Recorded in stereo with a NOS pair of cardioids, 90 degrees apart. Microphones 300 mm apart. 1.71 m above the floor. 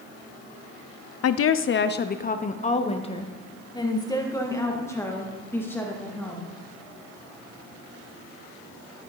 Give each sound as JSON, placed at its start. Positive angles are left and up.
{"t": 1.2, "sound": "a woman speaking", "azimuth_deg": 55, "distance_m": 0.7}